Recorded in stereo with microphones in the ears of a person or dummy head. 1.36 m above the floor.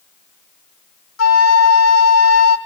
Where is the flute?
85° left, 2 m.